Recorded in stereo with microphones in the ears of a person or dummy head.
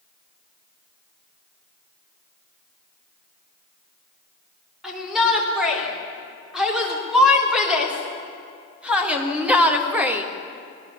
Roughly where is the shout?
Centre.